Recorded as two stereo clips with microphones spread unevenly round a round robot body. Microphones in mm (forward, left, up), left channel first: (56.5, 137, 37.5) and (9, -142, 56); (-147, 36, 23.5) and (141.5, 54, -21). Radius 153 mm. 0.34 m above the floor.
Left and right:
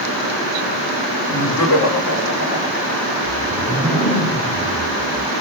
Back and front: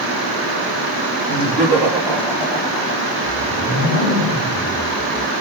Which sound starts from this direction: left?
Laughter, at 1.3 s.